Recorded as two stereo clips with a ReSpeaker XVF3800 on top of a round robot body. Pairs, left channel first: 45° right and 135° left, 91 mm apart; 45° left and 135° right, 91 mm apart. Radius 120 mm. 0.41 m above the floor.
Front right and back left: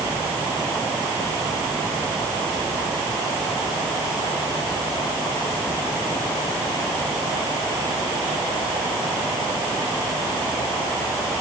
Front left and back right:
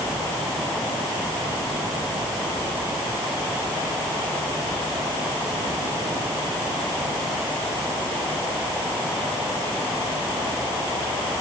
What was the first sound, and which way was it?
Only background noise.